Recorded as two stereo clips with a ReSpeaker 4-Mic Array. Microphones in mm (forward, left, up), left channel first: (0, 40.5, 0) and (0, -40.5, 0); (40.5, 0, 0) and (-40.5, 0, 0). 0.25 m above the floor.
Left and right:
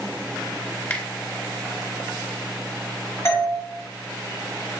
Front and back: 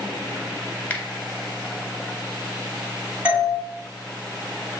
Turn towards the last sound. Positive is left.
turn(degrees=120)